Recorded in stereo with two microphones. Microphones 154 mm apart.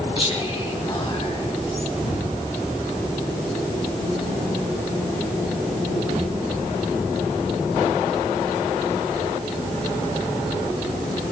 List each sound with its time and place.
0.2 s whispering: 35° left (ahead or behind), 1.8 m
2.0 s an explosion: 45° left (ahead or behind), 9.5 m